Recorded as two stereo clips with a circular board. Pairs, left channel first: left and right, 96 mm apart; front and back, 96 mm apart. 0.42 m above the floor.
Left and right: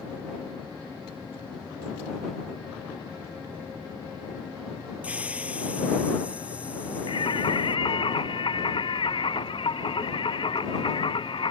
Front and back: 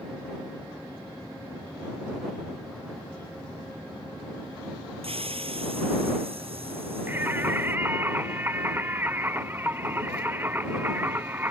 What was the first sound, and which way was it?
A hiss, 165° right.